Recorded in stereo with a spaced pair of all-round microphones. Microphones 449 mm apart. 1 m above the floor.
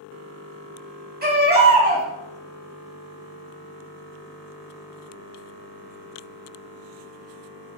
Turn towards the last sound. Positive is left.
turn(degrees=-20)  # may be behind; listen again after turning